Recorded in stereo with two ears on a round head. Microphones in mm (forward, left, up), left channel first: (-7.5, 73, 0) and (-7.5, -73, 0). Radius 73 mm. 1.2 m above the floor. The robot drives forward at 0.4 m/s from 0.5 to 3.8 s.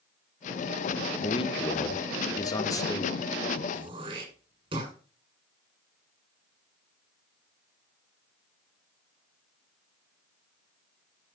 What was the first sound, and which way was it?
A man speaking, 35° left (ahead or behind).